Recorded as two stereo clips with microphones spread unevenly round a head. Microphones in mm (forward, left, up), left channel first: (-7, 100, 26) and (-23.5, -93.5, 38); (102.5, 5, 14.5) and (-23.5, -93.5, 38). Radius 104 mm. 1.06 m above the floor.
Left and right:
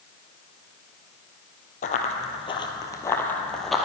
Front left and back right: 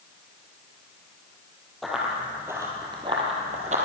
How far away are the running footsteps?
About 1.8 m.